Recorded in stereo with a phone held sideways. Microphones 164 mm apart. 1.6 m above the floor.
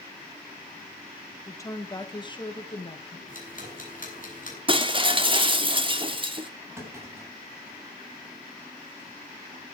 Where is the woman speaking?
15° left (ahead or behind), 2.5 m; by 3.2 s 40° left (ahead or behind), 2.5 m.